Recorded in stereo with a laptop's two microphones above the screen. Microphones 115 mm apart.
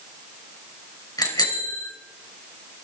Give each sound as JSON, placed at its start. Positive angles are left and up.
{"t": 1.2, "sound": "a bicycle bell", "side_deg": 30, "distance_m": 3.0}